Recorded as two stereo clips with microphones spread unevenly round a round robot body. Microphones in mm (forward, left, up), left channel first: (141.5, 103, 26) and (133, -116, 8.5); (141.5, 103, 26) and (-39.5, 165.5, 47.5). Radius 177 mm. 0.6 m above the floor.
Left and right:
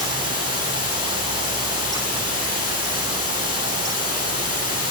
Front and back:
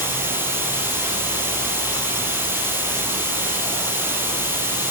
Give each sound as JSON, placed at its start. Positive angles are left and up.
{"t": 0.0, "sound": "running water", "azimuth_deg": 80, "distance_m": 10.0}